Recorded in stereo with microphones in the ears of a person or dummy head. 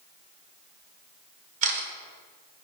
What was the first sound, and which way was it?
A camera shutter, 45° right (ahead or behind).